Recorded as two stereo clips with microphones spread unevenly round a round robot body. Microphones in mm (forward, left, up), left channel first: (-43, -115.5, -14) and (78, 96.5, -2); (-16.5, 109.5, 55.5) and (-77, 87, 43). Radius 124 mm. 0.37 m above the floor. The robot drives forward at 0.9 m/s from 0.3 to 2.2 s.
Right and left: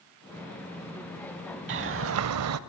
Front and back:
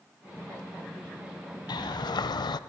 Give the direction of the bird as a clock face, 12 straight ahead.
11 o'clock.